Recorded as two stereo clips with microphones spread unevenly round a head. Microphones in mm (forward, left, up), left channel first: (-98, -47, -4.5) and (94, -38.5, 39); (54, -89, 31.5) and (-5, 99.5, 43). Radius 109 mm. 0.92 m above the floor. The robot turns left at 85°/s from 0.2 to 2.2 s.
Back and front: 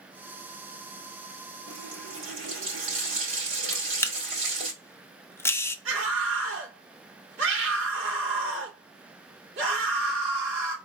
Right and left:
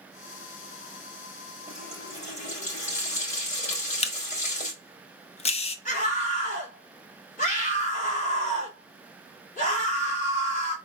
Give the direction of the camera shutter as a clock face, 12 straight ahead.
4 o'clock.